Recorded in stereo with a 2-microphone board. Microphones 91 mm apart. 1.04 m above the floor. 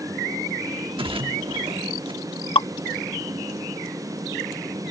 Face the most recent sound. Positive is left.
turn(degrees=85)